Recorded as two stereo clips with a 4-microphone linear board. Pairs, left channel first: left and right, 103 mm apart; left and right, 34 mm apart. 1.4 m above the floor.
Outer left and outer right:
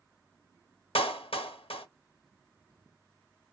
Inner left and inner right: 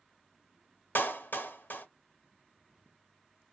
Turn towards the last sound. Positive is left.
turn(degrees=60)  # may be behind; listen again after turning